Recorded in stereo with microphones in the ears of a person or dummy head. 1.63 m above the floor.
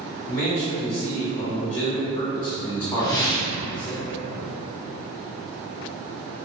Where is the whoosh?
20° left (ahead or behind), 0.6 m.